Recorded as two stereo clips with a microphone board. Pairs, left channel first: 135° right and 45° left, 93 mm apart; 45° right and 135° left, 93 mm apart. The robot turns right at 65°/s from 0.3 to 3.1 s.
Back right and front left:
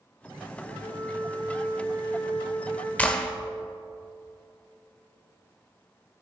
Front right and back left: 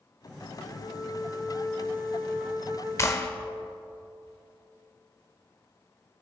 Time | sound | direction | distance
0.6 | a flute | 60° right | 4.5 m
3.0 | a clap | 75° right | 0.9 m